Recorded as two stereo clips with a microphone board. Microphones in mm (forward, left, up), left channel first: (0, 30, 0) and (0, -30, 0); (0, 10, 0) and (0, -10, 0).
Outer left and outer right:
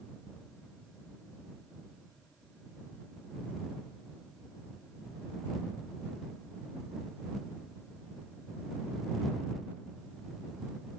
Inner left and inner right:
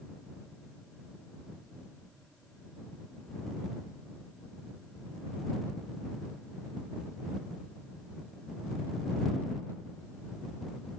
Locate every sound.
Only background noise.